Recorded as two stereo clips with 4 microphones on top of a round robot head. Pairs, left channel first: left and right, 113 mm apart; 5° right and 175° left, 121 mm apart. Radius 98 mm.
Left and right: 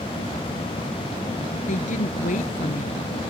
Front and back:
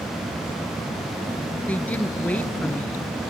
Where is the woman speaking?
70° left.